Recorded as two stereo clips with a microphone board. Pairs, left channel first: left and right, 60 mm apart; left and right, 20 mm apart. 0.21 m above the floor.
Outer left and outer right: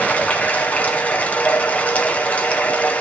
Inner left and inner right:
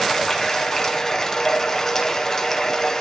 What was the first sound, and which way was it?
Running water, 25° left (ahead or behind).